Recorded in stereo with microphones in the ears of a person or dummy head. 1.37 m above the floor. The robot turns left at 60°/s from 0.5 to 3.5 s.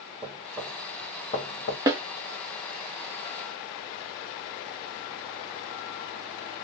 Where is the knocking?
20° right (ahead or behind), 1.1 m; by 1.8 s 45° left (ahead or behind), 1.1 m.